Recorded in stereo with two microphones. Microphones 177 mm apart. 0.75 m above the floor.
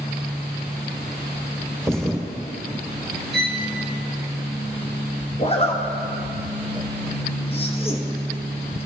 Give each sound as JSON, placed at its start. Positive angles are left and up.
{"t": 1.8, "sound": "a thud", "side_deg": 5, "distance_m": 2.5}
{"t": 3.3, "sound": "a violin", "side_deg": -70, "distance_m": 0.7}
{"t": 5.4, "sound": "a zipper", "side_deg": 35, "distance_m": 0.9}